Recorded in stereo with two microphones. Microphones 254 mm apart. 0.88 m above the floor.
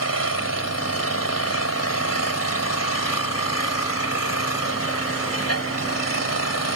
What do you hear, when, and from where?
0.0 s an engine running: 80° left